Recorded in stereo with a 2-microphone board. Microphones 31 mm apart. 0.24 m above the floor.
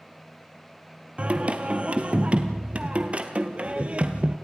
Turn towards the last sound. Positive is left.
turn(degrees=-35)  # may be behind; listen again after turning